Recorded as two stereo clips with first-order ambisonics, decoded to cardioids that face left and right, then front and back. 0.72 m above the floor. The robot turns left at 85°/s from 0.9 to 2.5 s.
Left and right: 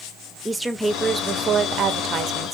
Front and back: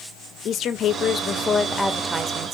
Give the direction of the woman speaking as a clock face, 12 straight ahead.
12 o'clock.